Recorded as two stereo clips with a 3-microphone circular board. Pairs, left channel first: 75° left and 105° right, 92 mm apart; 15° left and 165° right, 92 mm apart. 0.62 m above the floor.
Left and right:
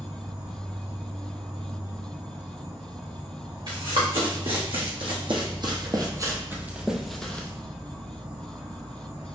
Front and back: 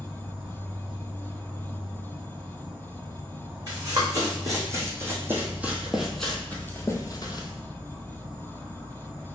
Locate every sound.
0.0 s an insect: 110° right, 0.9 m
3.7 s running footsteps: 115° right, 1.9 m; by 7.5 s 5° left, 0.9 m